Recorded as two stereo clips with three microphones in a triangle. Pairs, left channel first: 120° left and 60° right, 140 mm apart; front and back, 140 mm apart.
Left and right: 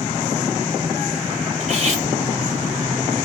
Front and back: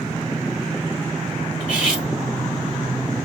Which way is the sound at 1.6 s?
100° right.